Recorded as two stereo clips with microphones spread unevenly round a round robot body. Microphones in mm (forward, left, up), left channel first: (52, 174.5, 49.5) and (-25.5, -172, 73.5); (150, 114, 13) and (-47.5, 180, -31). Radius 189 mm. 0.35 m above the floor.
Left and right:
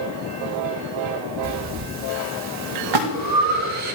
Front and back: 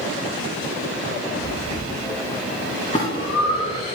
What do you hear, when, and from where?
1.4 s breathing: 90° right, 1.4 m
2.9 s a splash: 95° right, 1.5 m